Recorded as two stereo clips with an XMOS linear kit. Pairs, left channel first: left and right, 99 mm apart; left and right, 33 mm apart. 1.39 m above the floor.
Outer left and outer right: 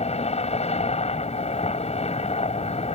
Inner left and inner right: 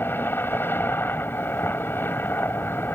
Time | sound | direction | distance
0.0 | a helicopter | 80° left | ?